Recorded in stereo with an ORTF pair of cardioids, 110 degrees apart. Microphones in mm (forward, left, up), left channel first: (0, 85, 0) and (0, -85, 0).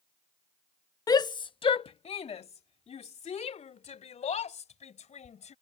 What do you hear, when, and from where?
1.1 s a shout: 20° left; by 5.5 s 40° left